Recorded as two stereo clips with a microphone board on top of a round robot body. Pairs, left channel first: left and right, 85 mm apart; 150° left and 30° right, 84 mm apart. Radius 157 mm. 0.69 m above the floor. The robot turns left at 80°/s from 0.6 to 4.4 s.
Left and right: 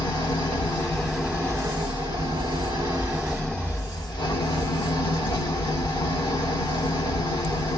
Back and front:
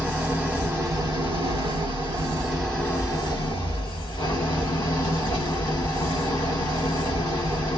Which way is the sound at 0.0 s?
45° left.